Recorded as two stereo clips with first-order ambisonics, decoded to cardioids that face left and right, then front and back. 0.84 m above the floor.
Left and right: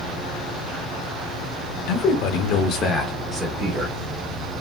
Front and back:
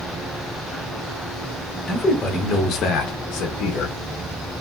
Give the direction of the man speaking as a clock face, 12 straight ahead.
9 o'clock.